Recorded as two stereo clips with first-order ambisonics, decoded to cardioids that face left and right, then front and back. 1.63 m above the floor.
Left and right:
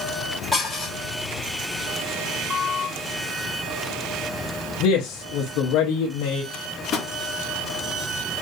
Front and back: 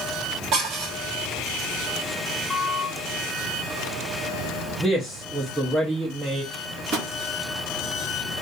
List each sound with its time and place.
0.5 s dishes clattering: 175° left, 1.1 m
2.5 s a squeak: 65° left, 0.6 m
4.8 s a man speaking: 100° left, 0.6 m
6.5 s a microwave: 150° left, 1.4 m